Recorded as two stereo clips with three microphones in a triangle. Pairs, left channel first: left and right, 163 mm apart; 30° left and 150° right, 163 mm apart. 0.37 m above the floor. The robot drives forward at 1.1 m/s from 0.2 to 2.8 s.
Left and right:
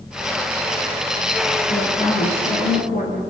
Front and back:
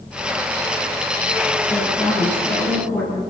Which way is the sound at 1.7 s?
100° left.